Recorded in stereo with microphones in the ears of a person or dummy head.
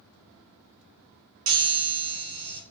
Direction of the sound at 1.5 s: 75° right (ahead or behind).